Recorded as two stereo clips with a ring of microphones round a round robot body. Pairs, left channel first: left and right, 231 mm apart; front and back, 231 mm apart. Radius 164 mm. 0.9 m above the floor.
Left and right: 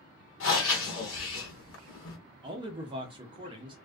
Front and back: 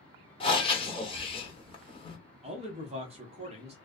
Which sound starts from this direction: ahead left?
Breathing, at 0.4 s.